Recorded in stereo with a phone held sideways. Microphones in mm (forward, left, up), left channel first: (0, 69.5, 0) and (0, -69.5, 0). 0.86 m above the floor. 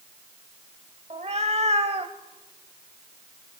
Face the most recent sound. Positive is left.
turn(degrees=-50)  # may be behind; listen again after turning